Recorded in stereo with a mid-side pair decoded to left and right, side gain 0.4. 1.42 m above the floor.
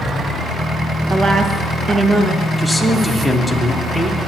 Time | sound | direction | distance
1.1 | a woman speaking | 55° right | 1.8 m
2.6 | a man speaking | 10° right | 2.0 m